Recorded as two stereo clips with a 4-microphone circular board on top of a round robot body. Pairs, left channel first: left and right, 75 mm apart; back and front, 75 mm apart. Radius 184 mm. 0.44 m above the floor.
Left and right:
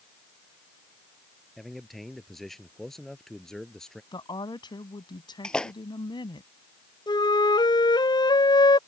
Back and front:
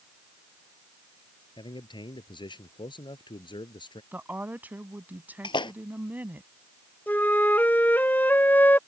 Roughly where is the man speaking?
Behind.